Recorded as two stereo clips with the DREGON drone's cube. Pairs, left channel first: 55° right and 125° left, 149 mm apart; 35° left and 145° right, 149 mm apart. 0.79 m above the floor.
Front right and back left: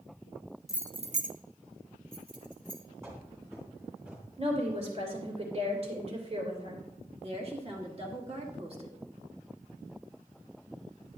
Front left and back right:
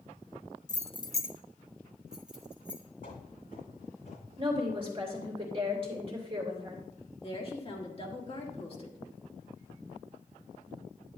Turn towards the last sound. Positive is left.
turn(degrees=80)